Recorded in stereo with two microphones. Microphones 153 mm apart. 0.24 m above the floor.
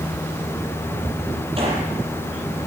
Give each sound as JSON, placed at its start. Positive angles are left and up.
{"t": 1.6, "sound": "a gunshot", "side_deg": -35, "distance_m": 7.0}